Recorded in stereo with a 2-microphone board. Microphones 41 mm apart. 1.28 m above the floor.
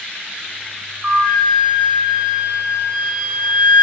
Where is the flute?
30° right (ahead or behind), 6 m.